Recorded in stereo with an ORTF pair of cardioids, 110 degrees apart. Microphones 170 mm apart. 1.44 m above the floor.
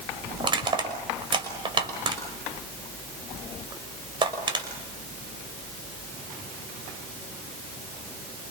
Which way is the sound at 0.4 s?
30° right.